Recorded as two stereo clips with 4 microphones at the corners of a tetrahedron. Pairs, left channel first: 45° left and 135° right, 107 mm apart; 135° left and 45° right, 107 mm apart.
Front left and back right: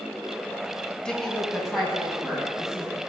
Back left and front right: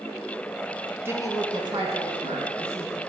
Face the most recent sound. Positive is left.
turn(degrees=-50)